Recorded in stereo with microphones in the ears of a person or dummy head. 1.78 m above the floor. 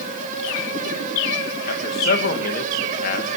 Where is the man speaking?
55° left (ahead or behind), 3 m.